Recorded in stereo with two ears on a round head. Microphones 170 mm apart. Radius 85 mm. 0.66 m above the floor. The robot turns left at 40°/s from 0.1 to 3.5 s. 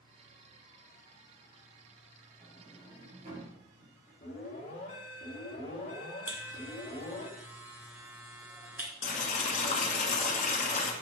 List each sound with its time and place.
2.4 s a sliding door: 5° right (ahead or behind), 4.5 m; by 4.1 s 45° right (ahead or behind), 4.5 m
4.2 s an alarm: 40° left (ahead or behind), 3.5 m
6.3 s a buzzer: 10° right (ahead or behind), 1.8 m
9.0 s boiling: 40° left (ahead or behind), 1.6 m